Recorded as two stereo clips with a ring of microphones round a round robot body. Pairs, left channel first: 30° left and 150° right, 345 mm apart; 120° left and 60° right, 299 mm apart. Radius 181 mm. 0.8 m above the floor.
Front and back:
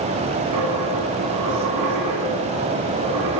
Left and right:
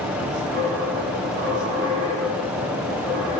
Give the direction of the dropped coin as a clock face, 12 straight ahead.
4 o'clock.